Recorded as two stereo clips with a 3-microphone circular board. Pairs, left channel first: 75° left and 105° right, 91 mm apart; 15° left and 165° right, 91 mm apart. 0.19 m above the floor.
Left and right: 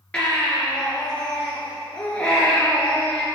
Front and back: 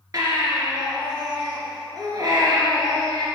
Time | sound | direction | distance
0.1 | a baby crying | 150° left | 2.5 m